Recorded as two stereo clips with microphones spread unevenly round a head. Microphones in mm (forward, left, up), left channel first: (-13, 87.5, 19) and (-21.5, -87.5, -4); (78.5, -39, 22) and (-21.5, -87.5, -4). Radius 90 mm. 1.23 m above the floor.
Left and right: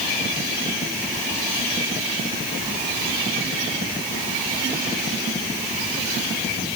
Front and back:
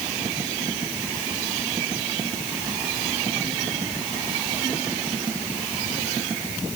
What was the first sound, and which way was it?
Only background noise.